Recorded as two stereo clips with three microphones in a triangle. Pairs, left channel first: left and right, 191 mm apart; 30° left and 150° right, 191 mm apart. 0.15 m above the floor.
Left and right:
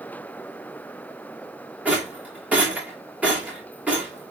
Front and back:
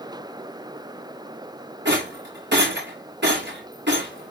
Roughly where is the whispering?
I don't hear whispering.